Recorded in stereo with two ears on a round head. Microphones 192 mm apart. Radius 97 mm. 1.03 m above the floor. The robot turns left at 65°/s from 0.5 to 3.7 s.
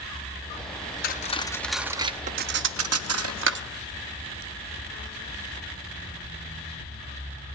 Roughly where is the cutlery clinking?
Left.